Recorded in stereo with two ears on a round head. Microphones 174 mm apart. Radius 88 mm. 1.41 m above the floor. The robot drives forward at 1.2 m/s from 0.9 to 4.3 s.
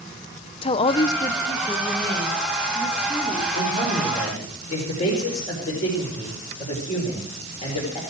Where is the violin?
No violin in this recording.